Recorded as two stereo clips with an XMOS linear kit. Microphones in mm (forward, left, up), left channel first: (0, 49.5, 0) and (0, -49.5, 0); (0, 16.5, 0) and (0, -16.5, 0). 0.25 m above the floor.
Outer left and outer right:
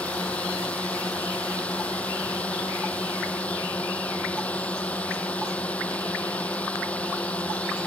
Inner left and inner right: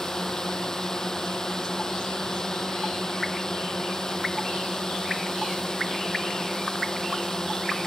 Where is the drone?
15° left (ahead or behind).